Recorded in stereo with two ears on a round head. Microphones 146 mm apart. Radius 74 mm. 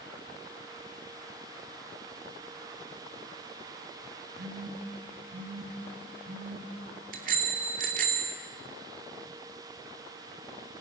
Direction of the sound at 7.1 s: 55° right (ahead or behind).